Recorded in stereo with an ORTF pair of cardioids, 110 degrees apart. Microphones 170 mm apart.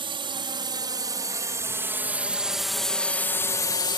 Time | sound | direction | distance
0.0 | a drone | 30° right | ?